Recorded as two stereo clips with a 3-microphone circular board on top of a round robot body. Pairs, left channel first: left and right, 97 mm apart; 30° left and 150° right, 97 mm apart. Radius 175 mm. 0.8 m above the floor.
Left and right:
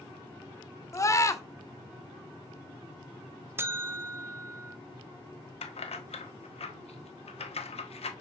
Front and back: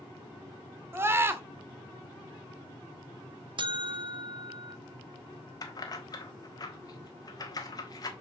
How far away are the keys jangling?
About 1.3 m.